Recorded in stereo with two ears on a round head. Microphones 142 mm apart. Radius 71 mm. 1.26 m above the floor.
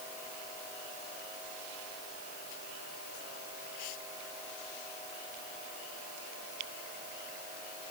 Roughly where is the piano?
I don't hear a piano.